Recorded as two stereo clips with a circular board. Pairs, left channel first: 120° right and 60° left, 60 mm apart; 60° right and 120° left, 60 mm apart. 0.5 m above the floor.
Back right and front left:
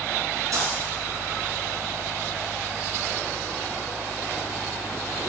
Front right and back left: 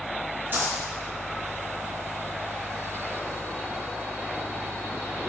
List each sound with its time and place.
0.5 s a dropped coin: 70° left, 2.5 m